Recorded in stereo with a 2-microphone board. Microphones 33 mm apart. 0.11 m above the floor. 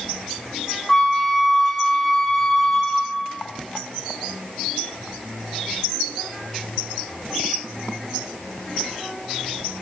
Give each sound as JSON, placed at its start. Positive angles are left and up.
{"t": 0.9, "sound": "a flute", "side_deg": 10, "distance_m": 1.8}